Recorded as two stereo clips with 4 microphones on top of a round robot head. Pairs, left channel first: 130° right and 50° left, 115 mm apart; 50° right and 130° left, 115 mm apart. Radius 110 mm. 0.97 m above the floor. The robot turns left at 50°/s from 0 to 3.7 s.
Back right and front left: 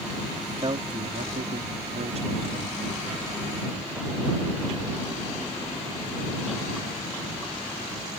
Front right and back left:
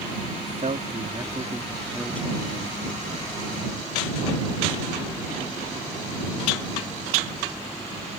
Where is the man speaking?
115° left; by 2.8 s 5° right.